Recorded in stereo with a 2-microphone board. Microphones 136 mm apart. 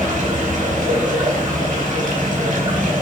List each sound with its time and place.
0.0 s running water: 75° right (ahead or behind), 4.5 m